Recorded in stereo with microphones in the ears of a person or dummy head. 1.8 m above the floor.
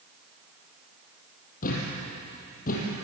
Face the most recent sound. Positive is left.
turn(degrees=45)  # may be behind; listen again after turning